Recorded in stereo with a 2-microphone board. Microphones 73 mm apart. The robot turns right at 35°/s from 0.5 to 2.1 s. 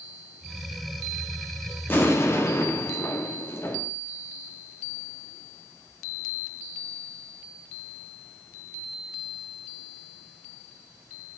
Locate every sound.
1.9 s an explosion: 30° left (ahead or behind), 1.2 m; by 3.9 s 35° left (ahead or behind), 1.2 m